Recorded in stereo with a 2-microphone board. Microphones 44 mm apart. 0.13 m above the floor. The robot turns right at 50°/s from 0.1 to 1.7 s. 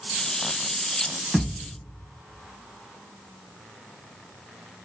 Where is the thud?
35° right (ahead or behind), 1.6 m; by 1.7 s 50° right (ahead or behind), 1.6 m.